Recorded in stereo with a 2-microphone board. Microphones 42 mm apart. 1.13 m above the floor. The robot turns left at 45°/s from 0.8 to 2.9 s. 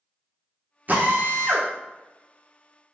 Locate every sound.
0.9 s a drill: 40° right, 0.7 m; by 1.7 s 75° right, 0.7 m